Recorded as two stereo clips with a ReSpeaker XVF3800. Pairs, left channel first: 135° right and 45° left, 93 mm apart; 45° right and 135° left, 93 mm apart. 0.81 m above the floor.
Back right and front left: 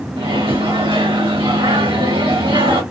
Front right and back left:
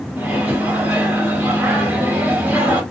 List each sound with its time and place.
0.2 s a microwave: 65° left, 1.4 m